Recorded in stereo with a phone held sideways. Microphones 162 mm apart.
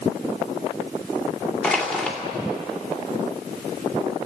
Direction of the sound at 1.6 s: 5° left (ahead or behind).